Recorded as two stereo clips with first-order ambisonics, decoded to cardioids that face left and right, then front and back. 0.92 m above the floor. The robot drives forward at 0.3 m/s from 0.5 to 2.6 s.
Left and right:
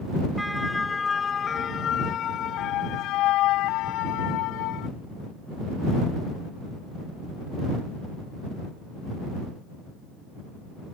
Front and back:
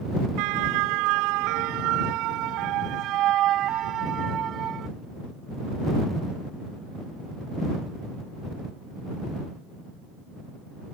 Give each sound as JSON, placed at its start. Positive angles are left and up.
{"t": 0.4, "sound": "a siren", "azimuth_deg": 180}